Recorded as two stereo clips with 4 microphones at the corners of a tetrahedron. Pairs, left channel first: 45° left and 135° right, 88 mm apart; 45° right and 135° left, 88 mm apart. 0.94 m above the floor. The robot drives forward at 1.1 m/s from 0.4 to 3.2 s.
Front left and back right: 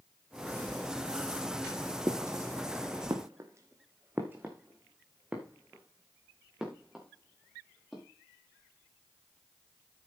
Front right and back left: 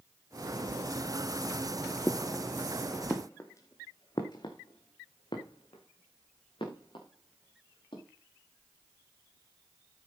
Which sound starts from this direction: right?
Footsteps, at 2.1 s.